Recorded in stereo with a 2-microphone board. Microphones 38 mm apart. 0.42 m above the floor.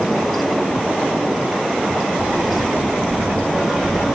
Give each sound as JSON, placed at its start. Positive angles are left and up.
{"t": 1.9, "sound": "footsteps", "side_deg": -65, "distance_m": 2.5}